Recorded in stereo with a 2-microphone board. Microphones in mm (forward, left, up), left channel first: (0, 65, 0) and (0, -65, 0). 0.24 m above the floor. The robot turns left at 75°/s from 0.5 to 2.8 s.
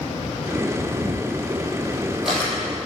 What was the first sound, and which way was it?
A camera shutter, 65° right (ahead or behind).